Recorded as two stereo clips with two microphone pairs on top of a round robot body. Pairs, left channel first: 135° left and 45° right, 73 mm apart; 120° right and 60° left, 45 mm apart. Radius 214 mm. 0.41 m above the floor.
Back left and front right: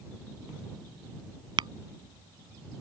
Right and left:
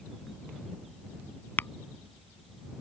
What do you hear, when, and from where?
1.6 s tapping: 70° right